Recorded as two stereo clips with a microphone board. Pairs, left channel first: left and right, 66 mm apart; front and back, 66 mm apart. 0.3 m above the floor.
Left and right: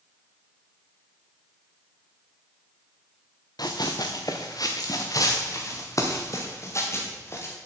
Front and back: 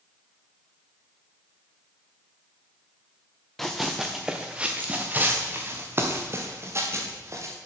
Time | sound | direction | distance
3.6 | running footsteps | 90° left | 1.2 m